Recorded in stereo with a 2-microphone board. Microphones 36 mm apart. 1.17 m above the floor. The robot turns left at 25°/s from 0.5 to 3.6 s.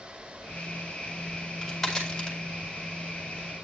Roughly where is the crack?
Centre.